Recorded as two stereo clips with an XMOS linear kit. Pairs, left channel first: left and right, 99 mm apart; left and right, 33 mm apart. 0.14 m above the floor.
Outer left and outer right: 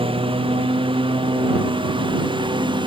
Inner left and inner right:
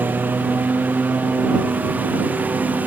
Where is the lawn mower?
65° right (ahead or behind); by 2.9 s 55° right (ahead or behind).